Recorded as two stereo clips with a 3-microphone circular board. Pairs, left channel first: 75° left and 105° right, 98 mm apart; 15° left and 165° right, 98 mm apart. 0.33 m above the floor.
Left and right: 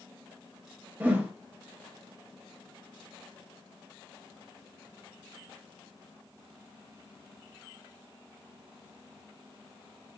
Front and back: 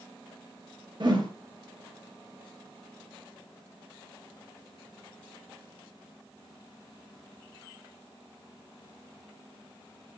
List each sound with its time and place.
1.0 s a whoosh: 170° right, 0.6 m